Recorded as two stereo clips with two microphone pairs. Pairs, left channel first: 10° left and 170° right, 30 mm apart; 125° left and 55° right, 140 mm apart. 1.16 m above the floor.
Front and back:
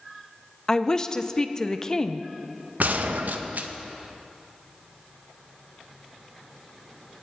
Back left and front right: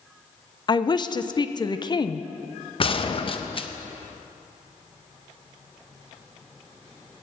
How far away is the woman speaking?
About 0.6 m.